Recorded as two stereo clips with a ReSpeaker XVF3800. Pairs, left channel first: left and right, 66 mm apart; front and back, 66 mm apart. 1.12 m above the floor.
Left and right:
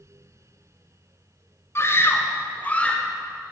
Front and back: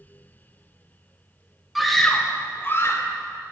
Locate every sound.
1.8 s a scream: 95° left, 0.8 m; by 3.1 s 20° left, 1.0 m